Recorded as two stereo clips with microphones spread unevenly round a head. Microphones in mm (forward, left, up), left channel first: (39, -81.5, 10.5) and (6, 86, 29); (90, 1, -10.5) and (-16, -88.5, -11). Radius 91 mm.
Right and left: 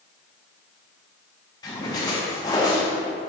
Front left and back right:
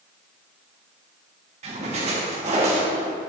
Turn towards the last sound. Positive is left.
turn(degrees=-145)